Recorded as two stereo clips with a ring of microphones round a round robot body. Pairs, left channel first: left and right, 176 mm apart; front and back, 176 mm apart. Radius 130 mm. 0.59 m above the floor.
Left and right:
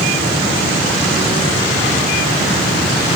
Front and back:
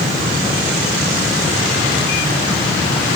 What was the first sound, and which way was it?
Only background noise.